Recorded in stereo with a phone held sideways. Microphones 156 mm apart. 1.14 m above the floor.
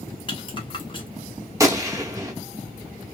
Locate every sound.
0.3 s a rattle: 35° left (ahead or behind), 0.9 m
1.6 s a gunshot: 20° right (ahead or behind), 0.7 m